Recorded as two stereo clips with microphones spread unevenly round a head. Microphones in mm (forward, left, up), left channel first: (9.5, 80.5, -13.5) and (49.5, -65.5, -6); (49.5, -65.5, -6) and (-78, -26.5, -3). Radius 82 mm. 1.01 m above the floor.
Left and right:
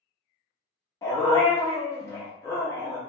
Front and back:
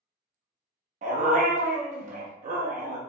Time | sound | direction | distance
1.0 | a dog barking | 175° left | 0.7 m